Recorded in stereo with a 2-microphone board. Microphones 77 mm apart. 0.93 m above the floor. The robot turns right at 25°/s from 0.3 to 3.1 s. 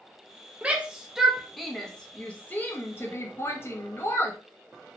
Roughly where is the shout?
Centre.